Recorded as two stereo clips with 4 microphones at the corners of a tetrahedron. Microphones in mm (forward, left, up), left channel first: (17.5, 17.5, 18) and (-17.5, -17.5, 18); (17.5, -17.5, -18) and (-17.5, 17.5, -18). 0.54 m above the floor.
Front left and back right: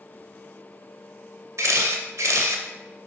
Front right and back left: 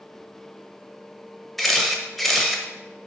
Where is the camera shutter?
130° right, 0.6 m.